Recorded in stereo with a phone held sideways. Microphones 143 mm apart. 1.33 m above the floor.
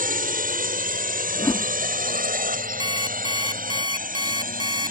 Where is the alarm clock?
30° right (ahead or behind).